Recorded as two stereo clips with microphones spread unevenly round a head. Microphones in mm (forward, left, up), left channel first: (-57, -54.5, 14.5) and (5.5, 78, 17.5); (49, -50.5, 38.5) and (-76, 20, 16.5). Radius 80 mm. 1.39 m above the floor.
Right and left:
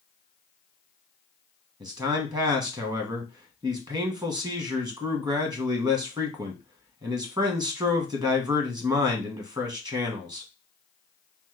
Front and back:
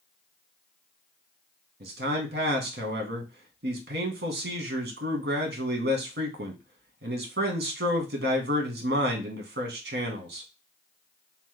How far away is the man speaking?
About 1.0 m.